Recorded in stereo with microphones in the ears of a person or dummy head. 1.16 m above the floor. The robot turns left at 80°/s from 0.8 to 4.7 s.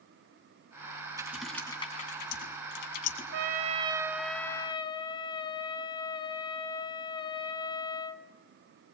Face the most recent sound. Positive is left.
turn(degrees=145)